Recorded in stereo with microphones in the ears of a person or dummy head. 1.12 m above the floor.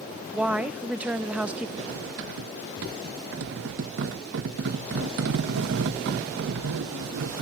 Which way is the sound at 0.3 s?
5° right (ahead or behind).